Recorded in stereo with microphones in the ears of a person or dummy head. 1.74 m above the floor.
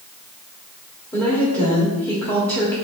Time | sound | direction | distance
1.1 | a woman speaking | 15° left (ahead or behind) | 1.2 m